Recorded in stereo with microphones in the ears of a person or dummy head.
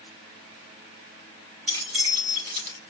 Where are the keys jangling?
40° right (ahead or behind), 3.5 m.